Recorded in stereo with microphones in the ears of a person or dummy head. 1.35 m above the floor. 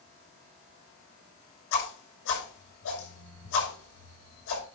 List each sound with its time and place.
1.7 s a whoosh: 75° left (ahead or behind), 6.5 m